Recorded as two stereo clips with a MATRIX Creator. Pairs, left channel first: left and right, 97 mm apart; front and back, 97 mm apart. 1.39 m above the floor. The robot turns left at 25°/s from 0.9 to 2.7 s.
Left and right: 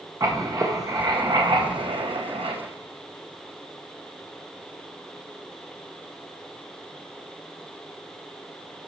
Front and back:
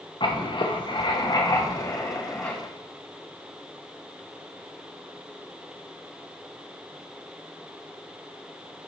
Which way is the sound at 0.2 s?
35° right.